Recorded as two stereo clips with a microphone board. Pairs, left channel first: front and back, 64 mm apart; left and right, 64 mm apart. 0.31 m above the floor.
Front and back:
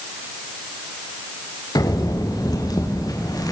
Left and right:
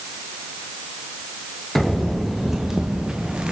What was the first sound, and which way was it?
Footsteps, straight ahead.